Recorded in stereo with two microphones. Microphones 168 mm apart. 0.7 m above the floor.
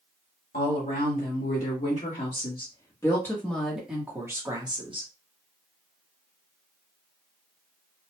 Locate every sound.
0.5 s a woman speaking: 55° left (ahead or behind), 1.9 m; by 5.1 s 30° right (ahead or behind), 1.3 m